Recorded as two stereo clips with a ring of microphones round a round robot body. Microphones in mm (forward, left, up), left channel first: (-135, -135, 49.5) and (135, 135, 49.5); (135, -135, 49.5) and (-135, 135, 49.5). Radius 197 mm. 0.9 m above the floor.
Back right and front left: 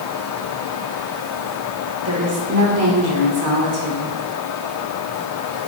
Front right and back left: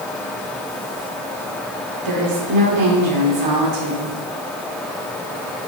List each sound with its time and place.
2.0 s a woman speaking: 100° left, 3 m